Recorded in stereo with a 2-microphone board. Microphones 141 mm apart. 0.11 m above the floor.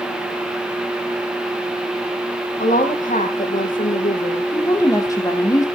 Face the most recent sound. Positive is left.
turn(degrees=25)  # may be behind; listen again after turning